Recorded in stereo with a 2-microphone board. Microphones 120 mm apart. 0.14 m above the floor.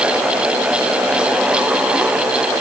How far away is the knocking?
No knocking in this recording.